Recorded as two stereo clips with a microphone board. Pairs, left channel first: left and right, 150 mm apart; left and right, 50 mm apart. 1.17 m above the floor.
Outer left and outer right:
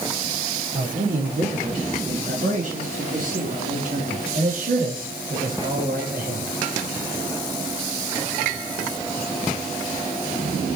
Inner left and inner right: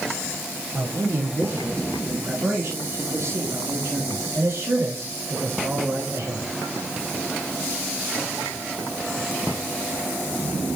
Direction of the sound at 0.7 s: 55° right (ahead or behind).